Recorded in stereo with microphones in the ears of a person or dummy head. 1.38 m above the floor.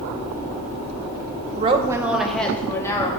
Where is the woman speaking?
40° right (ahead or behind), 0.9 m; by 3.1 s 15° left (ahead or behind), 2 m.